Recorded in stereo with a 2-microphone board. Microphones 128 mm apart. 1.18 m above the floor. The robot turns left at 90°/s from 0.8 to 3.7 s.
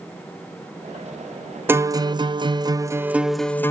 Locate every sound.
1.7 s a guitar: 30° right, 0.5 m; by 3.7 s 150° left, 0.5 m